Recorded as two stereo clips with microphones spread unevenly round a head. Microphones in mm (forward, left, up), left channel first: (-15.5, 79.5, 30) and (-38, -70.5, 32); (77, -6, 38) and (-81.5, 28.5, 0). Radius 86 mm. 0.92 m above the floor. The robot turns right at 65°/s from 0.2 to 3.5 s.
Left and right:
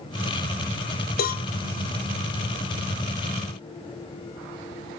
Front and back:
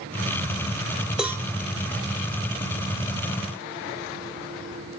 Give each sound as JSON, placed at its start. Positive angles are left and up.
{"t": 1.2, "sound": "a cowbell", "azimuth_deg": 85, "distance_m": 0.7}